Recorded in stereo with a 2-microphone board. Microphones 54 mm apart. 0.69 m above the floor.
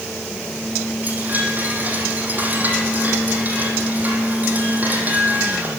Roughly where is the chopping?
I don't hear chopping.